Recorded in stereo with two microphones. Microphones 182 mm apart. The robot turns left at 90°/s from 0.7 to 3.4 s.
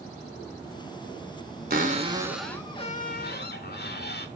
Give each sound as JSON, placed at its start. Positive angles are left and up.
{"t": 1.7, "sound": "a cupboard door", "azimuth_deg": -115, "distance_m": 0.6}